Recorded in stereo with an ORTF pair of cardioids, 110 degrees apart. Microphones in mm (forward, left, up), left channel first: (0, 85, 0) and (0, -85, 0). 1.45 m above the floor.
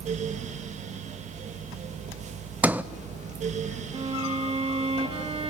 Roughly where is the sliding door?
Ahead.